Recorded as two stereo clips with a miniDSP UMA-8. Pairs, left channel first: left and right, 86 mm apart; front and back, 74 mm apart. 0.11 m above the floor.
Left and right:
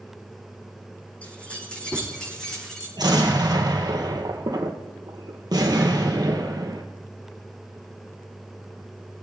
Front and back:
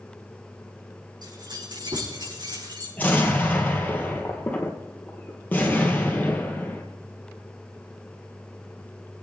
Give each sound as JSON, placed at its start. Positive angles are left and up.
{"t": 1.2, "sound": "keys jangling", "azimuth_deg": 165, "distance_m": 5.0}
{"t": 3.0, "sound": "an explosion", "azimuth_deg": -65, "distance_m": 2.0}